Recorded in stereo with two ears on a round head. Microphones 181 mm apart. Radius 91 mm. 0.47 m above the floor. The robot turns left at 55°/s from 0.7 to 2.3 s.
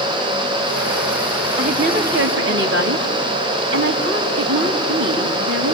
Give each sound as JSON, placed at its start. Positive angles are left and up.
{"t": 1.6, "sound": "a woman speaking", "azimuth_deg": -35, "distance_m": 3.0}